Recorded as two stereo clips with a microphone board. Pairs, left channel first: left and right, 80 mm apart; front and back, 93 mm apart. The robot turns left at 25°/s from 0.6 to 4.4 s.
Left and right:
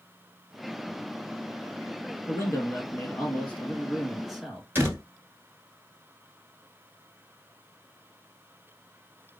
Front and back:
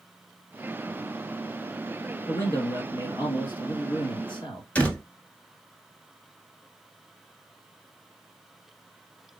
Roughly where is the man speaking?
Ahead left.